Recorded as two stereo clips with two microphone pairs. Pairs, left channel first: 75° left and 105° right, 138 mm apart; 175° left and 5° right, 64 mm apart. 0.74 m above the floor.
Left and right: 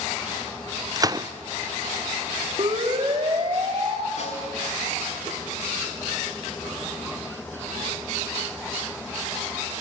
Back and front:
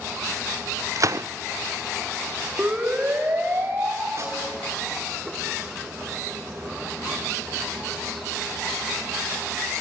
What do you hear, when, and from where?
1.0 s a gunshot: 40° right, 0.5 m
2.6 s a siren: 65° right, 2.5 m; by 4.1 s 60° right, 3 m
4.2 s a snare drum: 40° left, 4.5 m